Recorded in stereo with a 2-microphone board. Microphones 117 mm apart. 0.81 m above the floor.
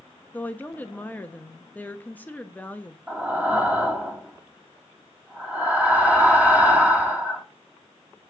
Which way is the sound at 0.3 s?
15° left (ahead or behind).